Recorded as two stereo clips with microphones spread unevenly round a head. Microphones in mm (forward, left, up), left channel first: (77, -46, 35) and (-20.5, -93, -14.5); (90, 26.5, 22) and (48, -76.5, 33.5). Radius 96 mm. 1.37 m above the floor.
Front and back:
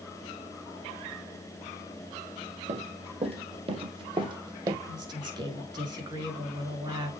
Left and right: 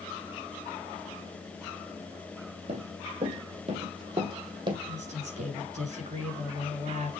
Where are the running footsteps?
125° right, 2.5 m; by 4.8 s 85° right, 2.5 m.